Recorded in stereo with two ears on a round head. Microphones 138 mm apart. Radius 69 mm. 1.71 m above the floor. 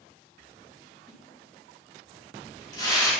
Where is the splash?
25° left (ahead or behind), 4.5 m.